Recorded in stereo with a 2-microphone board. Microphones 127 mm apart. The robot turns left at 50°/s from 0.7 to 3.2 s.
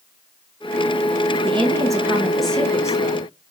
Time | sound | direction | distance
1.4 | a woman speaking | 130° right | 0.9 m